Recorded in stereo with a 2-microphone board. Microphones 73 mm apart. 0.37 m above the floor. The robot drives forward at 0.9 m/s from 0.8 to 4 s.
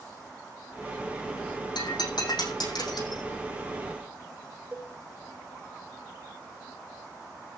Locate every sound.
1.8 s breaking glass: 80° left, 6 m; by 3.2 s 65° left (ahead or behind), 6.5 m
4.7 s a cowbell: 25° right (ahead or behind), 2.0 m